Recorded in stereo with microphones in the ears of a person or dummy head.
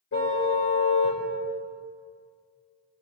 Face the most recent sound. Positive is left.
turn(degrees=70)  # may be behind; listen again after turning